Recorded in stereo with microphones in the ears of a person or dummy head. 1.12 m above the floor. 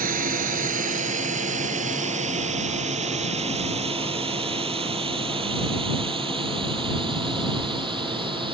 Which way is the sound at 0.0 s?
50° right (ahead or behind).